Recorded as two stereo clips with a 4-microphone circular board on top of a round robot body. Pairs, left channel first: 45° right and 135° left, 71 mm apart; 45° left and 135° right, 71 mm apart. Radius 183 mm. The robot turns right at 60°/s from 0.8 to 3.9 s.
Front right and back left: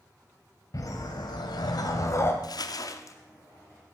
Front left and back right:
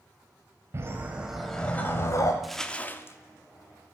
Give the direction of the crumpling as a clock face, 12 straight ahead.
2 o'clock.